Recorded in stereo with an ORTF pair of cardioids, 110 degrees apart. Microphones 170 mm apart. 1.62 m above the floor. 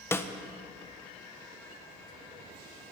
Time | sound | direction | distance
0.1 | a snare drum | 15° left | 1.4 m